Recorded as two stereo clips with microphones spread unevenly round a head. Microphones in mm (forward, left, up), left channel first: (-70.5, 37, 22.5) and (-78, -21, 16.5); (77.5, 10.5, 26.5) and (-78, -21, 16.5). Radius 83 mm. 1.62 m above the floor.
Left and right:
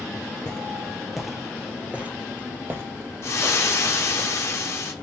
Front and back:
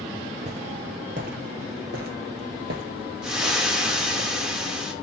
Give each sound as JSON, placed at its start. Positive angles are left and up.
{"t": 0.5, "sound": "footsteps", "azimuth_deg": 145, "distance_m": 2.5}
{"t": 3.2, "sound": "frying", "azimuth_deg": 105, "distance_m": 2.0}